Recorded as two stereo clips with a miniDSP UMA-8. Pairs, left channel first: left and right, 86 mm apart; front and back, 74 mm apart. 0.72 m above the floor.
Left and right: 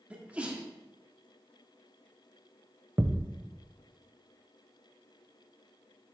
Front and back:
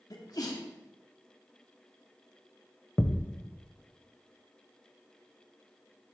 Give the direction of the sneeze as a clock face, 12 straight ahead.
1 o'clock.